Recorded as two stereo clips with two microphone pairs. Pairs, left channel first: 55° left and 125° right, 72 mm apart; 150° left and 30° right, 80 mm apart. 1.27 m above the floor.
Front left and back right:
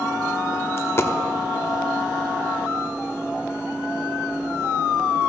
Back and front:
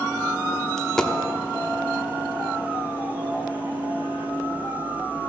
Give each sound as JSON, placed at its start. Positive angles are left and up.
{"t": 0.8, "sound": "a dropped coin", "azimuth_deg": 75, "distance_m": 0.9}